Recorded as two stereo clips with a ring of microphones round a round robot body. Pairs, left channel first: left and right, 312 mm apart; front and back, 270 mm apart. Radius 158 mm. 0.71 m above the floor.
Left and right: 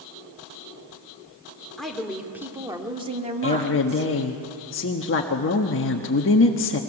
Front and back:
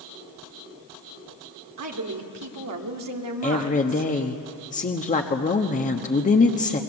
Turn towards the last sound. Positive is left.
turn(degrees=55)